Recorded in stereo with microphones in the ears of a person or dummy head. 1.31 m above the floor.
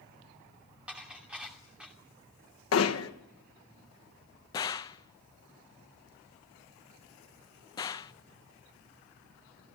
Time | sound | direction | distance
0.9 | dishes clattering | 5° right (ahead or behind) | 2.5 m
2.7 | hammering | 85° left | 1.2 m
4.5 | a gunshot | 15° left (ahead or behind) | 0.6 m